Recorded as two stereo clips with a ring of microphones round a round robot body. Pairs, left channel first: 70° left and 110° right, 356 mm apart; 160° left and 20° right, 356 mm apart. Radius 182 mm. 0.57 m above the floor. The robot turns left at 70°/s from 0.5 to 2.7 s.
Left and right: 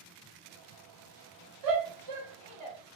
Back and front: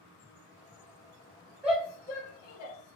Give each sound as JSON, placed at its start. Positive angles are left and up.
{"t": 1.6, "sound": "a shout", "azimuth_deg": -105, "distance_m": 1.3}